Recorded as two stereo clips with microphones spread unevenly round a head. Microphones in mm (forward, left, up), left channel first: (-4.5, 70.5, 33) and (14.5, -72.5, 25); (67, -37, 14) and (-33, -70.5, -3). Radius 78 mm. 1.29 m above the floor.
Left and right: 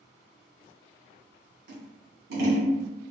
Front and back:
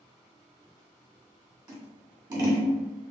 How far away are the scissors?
About 1.7 m.